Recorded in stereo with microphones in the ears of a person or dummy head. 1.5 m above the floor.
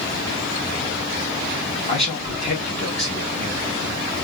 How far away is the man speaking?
About 1.9 m.